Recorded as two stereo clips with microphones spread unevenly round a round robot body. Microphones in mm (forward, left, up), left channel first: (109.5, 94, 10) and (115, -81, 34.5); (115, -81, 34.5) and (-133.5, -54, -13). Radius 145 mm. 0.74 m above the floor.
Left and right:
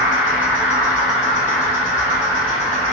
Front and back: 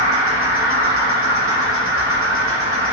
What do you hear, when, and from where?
0.0 s an insect: 135° left, 1.7 m